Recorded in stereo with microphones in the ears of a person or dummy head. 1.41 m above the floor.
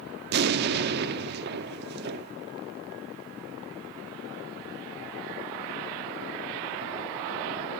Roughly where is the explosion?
Right.